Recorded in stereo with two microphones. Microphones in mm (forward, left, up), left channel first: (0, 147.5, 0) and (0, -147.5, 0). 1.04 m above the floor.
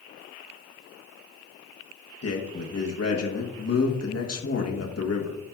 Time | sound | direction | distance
2.2 | a man speaking | 55° left (ahead or behind) | 1.1 m